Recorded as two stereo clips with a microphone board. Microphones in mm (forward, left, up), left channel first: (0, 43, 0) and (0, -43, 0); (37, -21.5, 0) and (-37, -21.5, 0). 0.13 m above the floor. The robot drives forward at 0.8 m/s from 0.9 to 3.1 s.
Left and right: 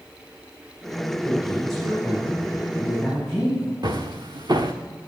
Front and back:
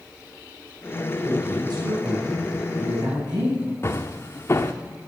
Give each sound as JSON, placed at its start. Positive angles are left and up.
{"t": 1.2, "sound": "a man speaking", "azimuth_deg": 180, "distance_m": 4.0}
{"t": 3.8, "sound": "footsteps", "azimuth_deg": -55, "distance_m": 0.8}